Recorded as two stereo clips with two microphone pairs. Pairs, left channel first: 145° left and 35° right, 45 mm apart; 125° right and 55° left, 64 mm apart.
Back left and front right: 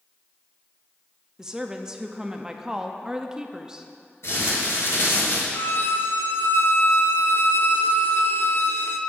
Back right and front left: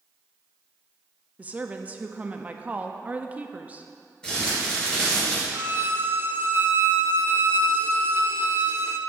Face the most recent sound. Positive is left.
turn(degrees=110)